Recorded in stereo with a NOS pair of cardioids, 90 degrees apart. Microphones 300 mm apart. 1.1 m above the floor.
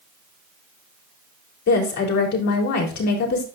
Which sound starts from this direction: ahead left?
A woman speaking, at 1.7 s.